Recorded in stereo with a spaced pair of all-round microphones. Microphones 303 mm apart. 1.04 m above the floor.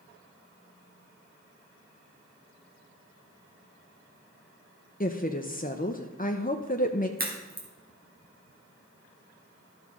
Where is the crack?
30° right (ahead or behind), 2 m.